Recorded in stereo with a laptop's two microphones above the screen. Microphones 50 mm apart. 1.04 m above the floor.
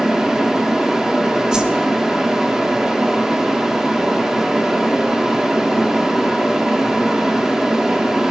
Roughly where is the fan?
Centre.